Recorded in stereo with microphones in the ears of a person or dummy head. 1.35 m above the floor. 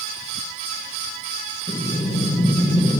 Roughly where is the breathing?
Centre.